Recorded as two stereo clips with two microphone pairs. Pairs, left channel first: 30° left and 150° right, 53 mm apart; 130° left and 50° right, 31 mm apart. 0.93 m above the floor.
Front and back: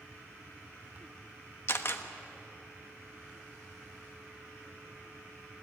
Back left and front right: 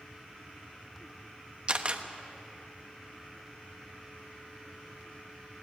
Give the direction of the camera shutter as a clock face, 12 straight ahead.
12 o'clock.